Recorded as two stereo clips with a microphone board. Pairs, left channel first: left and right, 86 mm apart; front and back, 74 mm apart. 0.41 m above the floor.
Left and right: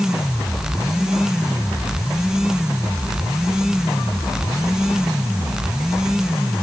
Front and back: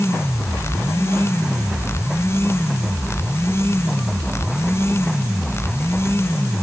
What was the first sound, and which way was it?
Only background noise.